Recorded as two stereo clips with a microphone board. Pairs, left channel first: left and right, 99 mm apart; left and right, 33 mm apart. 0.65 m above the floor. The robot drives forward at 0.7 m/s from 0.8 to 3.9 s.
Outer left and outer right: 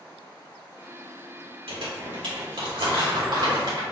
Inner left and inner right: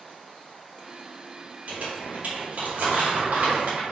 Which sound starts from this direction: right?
Crumpling, at 1.7 s.